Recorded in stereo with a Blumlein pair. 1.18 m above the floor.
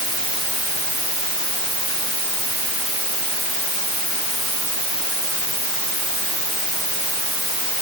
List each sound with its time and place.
Only background noise.